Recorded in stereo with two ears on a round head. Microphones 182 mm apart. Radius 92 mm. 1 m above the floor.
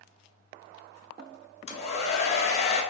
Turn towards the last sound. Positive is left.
turn(degrees=30)  # may be behind; listen again after turning